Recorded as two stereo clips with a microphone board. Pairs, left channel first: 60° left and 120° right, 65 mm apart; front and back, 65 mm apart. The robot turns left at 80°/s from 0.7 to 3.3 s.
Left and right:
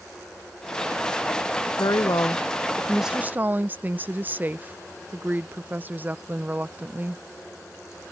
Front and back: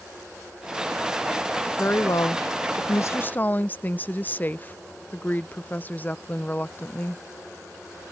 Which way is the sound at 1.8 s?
60° left.